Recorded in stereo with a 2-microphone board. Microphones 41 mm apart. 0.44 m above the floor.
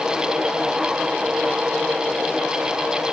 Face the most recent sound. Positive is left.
No sound to turn to.